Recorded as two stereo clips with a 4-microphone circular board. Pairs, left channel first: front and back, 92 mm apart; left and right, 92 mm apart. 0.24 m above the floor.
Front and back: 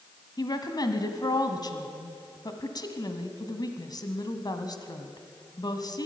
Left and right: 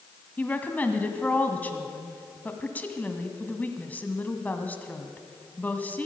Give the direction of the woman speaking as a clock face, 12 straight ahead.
11 o'clock.